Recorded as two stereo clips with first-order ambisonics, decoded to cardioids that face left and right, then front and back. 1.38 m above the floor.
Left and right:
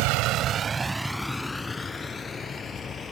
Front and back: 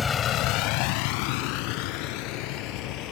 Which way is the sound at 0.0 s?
75° right.